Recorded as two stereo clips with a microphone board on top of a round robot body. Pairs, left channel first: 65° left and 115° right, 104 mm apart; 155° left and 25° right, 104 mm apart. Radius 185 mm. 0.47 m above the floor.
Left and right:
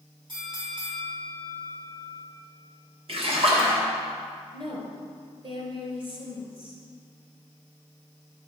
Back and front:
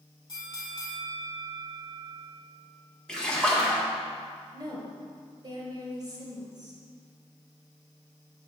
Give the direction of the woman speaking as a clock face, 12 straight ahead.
3 o'clock.